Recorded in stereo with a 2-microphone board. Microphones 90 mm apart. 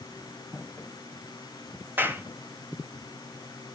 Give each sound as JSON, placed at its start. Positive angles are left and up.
{"t": 0.5, "sound": "footsteps", "side_deg": 20, "distance_m": 0.7}
{"t": 2.0, "sound": "a clap", "side_deg": -25, "distance_m": 1.2}